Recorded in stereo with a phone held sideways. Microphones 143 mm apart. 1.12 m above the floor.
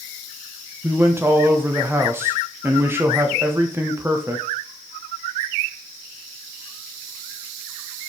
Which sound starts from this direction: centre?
A man speaking, at 0.8 s.